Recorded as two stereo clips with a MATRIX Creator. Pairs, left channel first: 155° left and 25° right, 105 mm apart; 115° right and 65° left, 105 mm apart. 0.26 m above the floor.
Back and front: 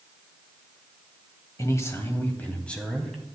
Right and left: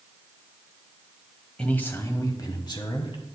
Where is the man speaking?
175° left, 1.0 m; by 3.2 s 115° right, 1.5 m.